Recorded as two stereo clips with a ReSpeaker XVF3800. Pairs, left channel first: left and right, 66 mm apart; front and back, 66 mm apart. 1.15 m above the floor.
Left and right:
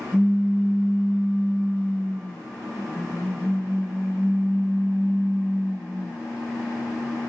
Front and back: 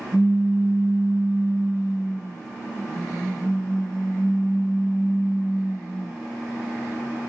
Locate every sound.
0.1 s a pop: 145° left, 1.0 m